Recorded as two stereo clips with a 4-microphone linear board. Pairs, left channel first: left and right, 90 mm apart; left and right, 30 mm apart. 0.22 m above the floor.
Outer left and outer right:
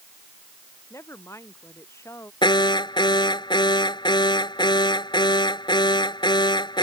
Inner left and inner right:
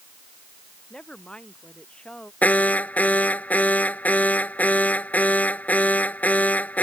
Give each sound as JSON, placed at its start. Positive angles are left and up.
{"t": 0.9, "sound": "a woman speaking", "side_deg": 30}
{"t": 2.4, "sound": "an alarm", "side_deg": 60}